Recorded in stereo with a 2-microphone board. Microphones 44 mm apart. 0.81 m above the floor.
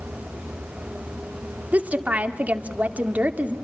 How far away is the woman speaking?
About 2 m.